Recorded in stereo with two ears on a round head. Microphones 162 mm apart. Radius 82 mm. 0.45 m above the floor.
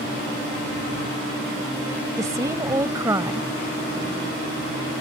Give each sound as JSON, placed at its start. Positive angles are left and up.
{"t": 2.2, "sound": "a woman speaking", "side_deg": -20}